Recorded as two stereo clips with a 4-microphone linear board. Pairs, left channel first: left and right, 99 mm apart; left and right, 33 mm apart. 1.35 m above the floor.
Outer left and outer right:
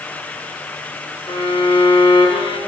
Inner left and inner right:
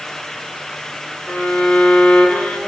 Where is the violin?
55° left (ahead or behind), 1.3 m.